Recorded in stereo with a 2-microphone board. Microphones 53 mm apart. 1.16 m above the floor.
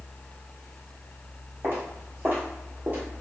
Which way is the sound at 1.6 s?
45° right (ahead or behind).